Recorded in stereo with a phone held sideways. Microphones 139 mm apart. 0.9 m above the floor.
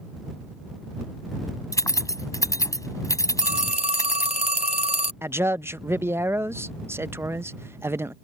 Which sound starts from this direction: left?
Keys jangling, at 1.7 s.